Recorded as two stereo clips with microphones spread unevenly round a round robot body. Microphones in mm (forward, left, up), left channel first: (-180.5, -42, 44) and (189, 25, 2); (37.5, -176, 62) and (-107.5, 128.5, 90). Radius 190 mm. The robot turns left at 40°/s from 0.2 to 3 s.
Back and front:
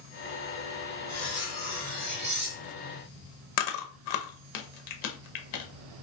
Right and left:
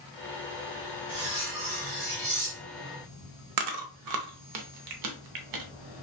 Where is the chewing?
150° left, 0.5 m.